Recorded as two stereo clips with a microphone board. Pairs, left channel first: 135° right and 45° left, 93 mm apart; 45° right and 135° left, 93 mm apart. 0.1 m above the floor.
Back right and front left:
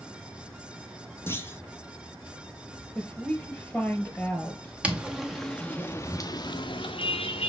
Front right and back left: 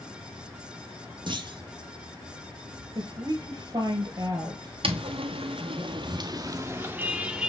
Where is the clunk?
160° left, 0.6 m.